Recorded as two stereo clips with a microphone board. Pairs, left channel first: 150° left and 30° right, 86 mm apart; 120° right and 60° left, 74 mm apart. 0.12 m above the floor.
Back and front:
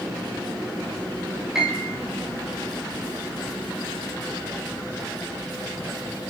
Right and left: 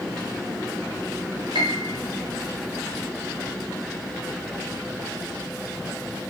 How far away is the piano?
About 8.5 m.